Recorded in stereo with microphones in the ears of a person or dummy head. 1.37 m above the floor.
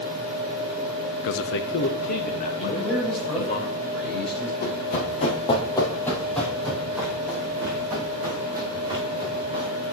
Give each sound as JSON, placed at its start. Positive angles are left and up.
{"t": 1.2, "sound": "a man speaking", "side_deg": 70, "distance_m": 0.5}
{"t": 2.6, "sound": "a man speaking", "side_deg": 5, "distance_m": 5.0}
{"t": 4.6, "sound": "running footsteps", "side_deg": 50, "distance_m": 2.5}